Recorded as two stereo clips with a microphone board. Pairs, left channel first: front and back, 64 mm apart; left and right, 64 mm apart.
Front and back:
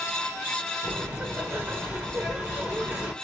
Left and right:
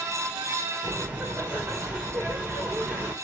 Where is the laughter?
125° right, 1.0 m.